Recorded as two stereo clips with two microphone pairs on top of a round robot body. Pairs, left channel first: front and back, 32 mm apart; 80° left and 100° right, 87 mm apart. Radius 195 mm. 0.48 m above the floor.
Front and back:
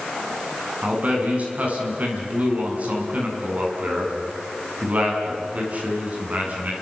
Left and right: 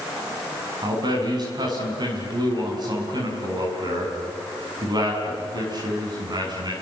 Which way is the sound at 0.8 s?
140° right.